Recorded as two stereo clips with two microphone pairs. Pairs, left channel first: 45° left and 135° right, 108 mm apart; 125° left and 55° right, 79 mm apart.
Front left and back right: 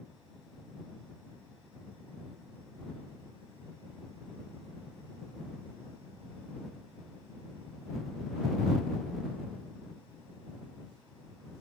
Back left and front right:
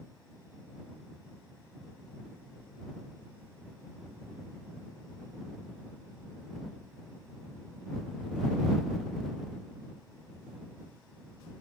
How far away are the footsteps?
No footsteps in this recording.